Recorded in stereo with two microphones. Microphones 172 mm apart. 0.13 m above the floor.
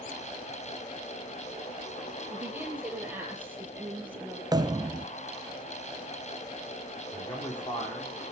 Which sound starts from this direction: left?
A man speaking, at 7.1 s.